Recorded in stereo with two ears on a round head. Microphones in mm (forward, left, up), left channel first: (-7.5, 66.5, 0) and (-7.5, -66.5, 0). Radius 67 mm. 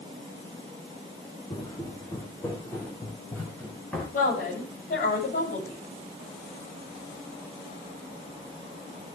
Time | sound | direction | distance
1.5 | footsteps | 25° left (ahead or behind) | 4 m
4.1 | a woman speaking | 65° left (ahead or behind) | 8.5 m